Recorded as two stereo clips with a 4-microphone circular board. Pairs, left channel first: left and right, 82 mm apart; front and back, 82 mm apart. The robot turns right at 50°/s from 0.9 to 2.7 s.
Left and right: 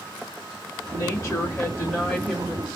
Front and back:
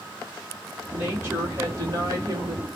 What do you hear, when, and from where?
0.9 s a woman speaking: 110° left, 1.8 m; by 2.6 s 160° right, 1.8 m